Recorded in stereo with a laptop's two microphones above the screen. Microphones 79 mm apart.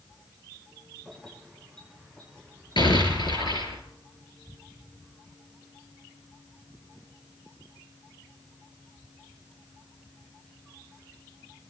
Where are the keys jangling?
5° left (ahead or behind), 8 m; by 3.7 s 20° left (ahead or behind), 10 m.